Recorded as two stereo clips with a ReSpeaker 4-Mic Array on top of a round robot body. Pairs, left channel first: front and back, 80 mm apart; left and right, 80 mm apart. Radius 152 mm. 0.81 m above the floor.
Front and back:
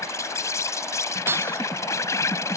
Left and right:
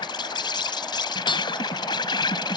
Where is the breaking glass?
120° left.